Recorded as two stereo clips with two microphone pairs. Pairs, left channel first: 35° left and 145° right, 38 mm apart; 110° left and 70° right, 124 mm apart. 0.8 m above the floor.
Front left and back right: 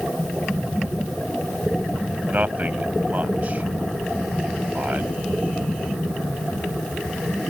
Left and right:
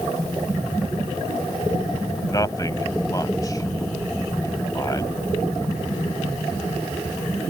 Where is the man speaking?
170° left.